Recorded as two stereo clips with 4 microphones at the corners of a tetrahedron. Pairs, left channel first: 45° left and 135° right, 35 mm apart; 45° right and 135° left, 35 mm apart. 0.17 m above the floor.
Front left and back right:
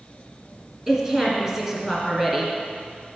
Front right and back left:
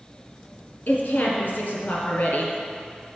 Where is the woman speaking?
70° right, 2.5 m.